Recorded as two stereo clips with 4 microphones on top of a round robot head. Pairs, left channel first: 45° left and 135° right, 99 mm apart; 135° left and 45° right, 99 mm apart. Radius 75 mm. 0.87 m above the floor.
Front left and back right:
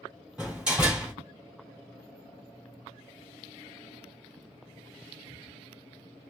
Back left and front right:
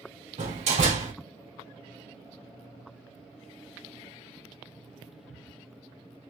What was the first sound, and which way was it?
A door slam, 55° right.